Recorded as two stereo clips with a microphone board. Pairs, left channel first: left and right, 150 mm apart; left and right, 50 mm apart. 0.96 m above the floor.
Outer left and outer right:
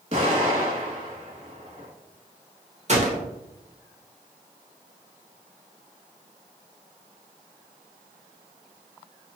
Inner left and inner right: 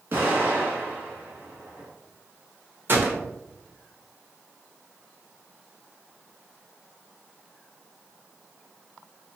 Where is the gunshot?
50° right (ahead or behind), 0.9 m.